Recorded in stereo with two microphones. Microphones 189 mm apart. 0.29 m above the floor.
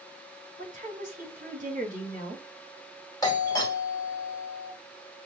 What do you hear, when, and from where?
0.6 s a woman speaking: 40° right (ahead or behind), 3 m
3.2 s a doorbell: 20° left (ahead or behind), 1.5 m